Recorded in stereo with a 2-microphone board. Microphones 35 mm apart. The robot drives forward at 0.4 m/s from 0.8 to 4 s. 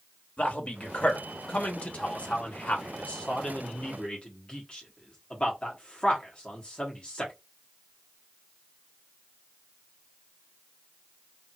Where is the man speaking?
35° left (ahead or behind), 1.2 m; by 7.3 s 30° left (ahead or behind), 1.4 m.